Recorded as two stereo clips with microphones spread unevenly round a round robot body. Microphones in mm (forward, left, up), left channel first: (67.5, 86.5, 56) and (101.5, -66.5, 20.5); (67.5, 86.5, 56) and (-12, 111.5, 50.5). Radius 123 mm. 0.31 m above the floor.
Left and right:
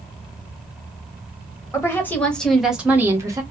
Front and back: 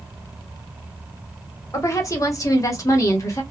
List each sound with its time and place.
1.7 s a woman speaking: 25° left, 1.4 m; by 3.4 s 50° right, 1.2 m